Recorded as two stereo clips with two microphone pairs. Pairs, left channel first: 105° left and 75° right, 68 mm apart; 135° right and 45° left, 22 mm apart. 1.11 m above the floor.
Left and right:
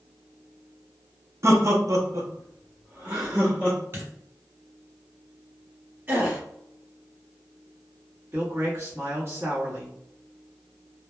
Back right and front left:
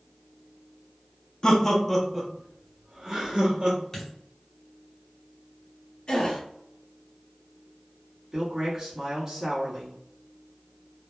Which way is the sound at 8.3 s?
25° right.